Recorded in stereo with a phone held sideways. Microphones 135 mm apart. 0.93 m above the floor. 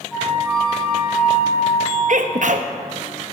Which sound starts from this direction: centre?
A flute, at 0.1 s.